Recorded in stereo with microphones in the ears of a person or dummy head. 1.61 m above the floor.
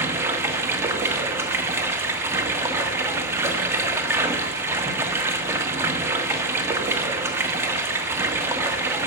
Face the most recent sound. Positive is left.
turn(degrees=-20)  # may be behind; listen again after turning